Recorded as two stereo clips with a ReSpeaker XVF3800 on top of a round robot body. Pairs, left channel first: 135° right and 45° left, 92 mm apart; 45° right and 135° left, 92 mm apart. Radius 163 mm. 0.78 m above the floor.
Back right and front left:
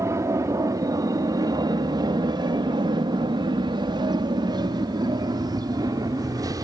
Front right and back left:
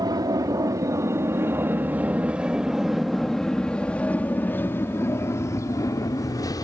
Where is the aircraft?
100° left; by 6.7 s straight ahead.